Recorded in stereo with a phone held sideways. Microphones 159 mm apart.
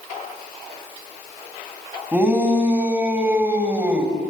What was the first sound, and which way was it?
A shout, 10° right (ahead or behind).